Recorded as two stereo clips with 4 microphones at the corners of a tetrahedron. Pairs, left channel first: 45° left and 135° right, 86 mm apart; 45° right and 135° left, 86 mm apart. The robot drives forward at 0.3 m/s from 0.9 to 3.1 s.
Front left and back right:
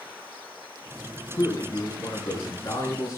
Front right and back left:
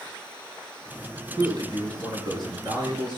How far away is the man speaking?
About 6.5 m.